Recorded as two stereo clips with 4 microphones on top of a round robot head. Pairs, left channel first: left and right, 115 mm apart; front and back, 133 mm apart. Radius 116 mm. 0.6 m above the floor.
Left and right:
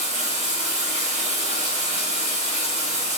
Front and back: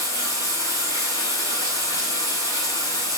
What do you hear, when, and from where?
0.0 s running water: 65° right, 3 m